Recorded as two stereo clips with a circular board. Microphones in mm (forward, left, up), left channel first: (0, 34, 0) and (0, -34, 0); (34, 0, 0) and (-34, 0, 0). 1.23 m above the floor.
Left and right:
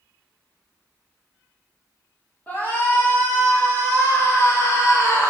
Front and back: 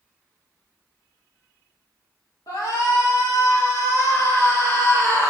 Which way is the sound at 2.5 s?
25° left.